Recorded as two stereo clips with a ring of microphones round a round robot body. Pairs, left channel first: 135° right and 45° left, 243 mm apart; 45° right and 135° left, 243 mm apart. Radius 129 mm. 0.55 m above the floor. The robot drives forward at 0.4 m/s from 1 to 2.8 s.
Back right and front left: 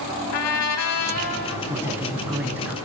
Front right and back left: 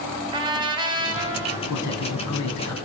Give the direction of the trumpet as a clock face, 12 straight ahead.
5 o'clock.